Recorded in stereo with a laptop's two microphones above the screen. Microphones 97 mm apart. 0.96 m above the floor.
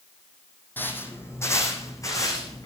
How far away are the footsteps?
About 3 m.